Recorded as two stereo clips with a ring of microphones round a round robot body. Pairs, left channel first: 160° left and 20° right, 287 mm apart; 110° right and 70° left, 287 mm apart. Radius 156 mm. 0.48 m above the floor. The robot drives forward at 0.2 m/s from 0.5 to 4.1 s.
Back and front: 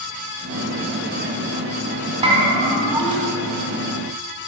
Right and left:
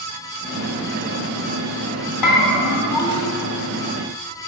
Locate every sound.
2.2 s a bell: 90° right, 1.9 m; by 3.3 s 95° right, 1.9 m